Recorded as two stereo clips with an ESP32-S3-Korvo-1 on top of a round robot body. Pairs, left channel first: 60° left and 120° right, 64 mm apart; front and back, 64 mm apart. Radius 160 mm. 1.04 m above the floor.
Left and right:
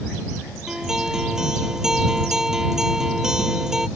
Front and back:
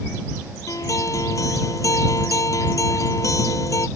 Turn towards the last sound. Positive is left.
turn(degrees=-40)